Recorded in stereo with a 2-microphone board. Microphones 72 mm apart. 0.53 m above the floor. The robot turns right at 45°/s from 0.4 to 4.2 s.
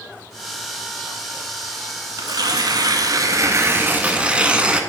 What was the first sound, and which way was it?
Tearing paper, 110° right.